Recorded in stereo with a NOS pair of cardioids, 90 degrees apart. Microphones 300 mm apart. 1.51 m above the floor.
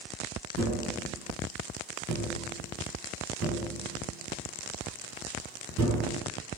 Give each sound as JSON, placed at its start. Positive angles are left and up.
{"t": 0.6, "sound": "tapping", "azimuth_deg": -70, "distance_m": 4.0}